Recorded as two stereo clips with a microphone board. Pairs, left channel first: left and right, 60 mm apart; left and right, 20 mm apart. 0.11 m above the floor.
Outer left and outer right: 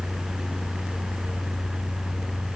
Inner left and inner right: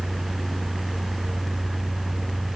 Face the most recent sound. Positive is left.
No sound to turn to.